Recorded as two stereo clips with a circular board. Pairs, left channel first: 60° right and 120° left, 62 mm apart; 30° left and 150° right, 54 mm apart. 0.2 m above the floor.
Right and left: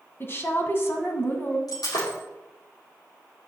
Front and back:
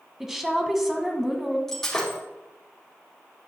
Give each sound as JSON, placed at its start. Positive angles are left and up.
{"t": 0.2, "sound": "a woman speaking", "azimuth_deg": -70, "distance_m": 1.6}
{"t": 1.7, "sound": "breaking glass", "azimuth_deg": -50, "distance_m": 4.5}